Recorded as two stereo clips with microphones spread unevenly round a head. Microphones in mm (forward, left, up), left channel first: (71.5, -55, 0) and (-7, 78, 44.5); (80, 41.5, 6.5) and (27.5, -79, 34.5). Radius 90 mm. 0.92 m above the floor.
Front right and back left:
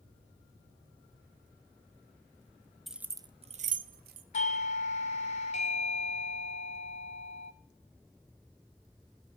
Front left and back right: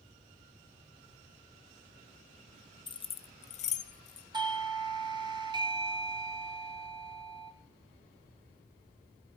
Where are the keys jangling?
20° left, 0.5 m; by 4.2 s 95° left, 0.8 m.